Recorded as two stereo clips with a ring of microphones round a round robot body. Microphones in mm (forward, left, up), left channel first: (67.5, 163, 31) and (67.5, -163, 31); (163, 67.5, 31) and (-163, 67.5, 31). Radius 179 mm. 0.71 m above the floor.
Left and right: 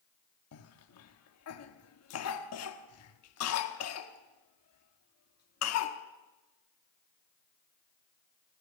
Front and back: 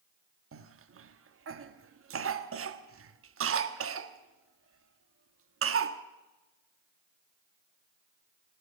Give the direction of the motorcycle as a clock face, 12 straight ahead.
No motorcycle in this recording.